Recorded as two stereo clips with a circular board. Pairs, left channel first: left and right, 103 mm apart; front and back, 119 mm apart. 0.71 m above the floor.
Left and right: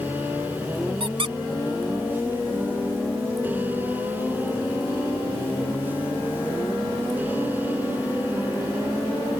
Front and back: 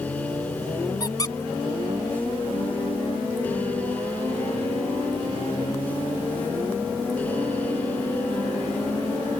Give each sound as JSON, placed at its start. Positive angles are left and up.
{"t": 1.0, "sound": "a squeak", "azimuth_deg": -60}